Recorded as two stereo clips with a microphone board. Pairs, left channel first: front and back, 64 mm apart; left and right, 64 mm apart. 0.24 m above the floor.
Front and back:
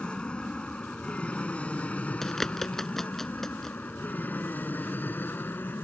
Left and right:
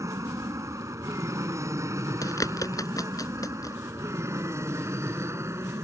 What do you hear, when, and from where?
0.0 s an aircraft: 75° right; by 5.8 s 55° right
2.2 s a bird: 85° left